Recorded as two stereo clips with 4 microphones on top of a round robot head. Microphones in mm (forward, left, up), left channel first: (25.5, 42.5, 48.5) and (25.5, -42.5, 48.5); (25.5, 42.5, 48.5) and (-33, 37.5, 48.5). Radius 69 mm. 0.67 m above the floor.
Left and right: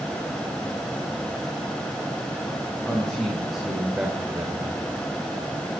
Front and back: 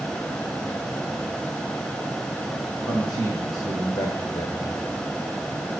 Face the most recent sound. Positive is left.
turn(degrees=-55)